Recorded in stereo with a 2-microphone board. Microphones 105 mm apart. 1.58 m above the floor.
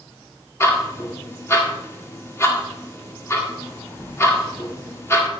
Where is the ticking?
25° left (ahead or behind), 1.8 m.